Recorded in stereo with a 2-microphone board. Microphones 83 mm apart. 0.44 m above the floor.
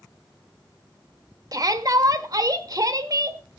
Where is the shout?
45° right (ahead or behind), 1.1 m.